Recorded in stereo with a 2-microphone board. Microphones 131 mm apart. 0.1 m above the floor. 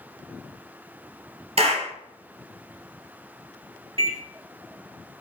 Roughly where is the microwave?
Right.